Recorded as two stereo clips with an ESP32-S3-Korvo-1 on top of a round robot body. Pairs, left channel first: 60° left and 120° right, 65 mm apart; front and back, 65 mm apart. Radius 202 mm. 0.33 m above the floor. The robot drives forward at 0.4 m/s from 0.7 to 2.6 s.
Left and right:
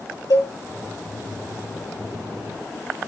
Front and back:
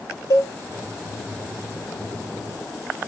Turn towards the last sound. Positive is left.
turn(degrees=45)